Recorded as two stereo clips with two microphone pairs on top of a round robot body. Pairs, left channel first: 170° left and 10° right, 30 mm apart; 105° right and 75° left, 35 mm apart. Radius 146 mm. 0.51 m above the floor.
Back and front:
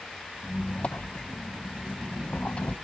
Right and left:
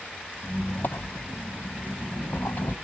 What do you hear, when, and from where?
0.4 s a squeak: 135° right, 0.5 m